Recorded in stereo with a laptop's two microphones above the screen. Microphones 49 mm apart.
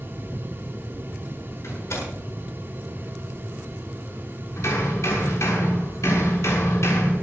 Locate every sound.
0.0 s a fan: 40° right (ahead or behind), 7.5 m
1.6 s a door slam: 65° left (ahead or behind), 8 m
4.6 s hammering: 70° left (ahead or behind), 6.5 m